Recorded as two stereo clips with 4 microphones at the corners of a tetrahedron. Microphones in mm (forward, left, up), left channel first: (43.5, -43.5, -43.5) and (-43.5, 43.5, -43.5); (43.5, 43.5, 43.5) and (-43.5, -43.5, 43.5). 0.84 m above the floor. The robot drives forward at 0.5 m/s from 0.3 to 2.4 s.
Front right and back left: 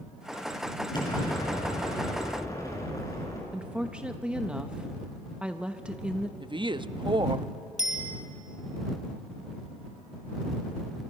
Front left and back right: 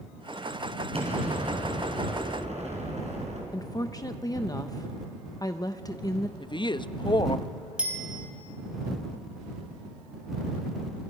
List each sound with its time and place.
0.9 s an explosion: 100° right, 4.5 m; by 3.4 s 110° right, 5 m
3.5 s a woman speaking: 65° left, 0.7 m
6.4 s a woman speaking: 90° left, 0.6 m
7.8 s a bicycle bell: 55° right, 3.5 m